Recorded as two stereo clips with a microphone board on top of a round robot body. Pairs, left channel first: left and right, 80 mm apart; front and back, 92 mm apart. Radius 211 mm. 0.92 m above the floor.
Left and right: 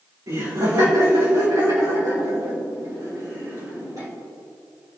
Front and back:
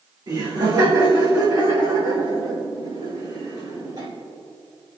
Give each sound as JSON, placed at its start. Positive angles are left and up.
{"t": 0.3, "sound": "laughter", "azimuth_deg": -140, "distance_m": 3.5}